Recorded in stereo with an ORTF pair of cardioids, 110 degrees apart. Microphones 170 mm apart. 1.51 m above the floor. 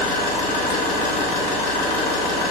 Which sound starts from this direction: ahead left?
An engine running, at 0.0 s.